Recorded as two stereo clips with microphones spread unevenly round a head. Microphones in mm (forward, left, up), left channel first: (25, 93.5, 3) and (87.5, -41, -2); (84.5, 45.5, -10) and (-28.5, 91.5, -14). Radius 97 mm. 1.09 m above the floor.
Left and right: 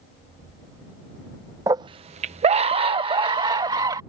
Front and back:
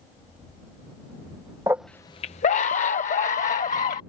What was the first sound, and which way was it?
A scream, 135° right.